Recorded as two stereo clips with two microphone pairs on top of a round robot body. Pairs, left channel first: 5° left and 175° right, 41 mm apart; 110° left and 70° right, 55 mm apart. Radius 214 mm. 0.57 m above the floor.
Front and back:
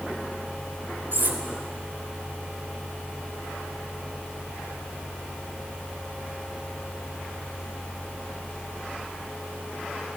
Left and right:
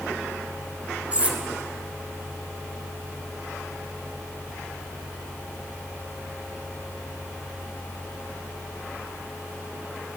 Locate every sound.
1.1 s cutlery clinking: 135° right, 1.2 m